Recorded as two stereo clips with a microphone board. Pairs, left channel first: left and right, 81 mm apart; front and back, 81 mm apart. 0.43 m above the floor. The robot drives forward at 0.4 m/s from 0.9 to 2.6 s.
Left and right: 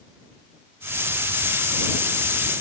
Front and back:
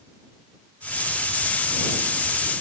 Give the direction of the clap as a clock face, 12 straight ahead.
I don't hear a clap.